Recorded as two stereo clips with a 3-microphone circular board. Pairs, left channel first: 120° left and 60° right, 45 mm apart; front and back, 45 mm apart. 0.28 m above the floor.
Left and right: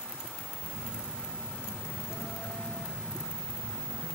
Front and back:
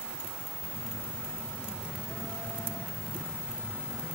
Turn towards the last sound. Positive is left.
turn(degrees=110)